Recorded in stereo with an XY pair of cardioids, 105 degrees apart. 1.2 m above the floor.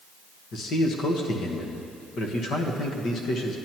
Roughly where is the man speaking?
Left.